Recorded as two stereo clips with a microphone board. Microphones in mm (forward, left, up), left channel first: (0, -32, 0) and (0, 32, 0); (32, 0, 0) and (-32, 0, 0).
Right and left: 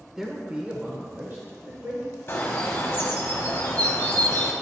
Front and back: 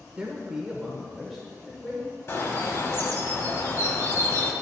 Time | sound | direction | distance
0.2 | a man speaking | 155° left | 0.8 m
2.3 | a bird | 40° right | 1.0 m